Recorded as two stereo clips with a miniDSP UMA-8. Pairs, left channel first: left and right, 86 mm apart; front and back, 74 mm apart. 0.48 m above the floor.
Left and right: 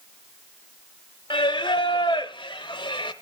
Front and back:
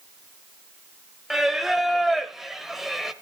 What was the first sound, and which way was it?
Singing, 95° left.